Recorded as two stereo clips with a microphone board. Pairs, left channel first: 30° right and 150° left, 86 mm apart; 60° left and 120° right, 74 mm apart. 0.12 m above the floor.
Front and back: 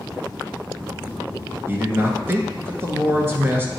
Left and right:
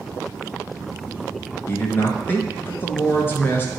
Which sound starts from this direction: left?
A man speaking, at 1.7 s.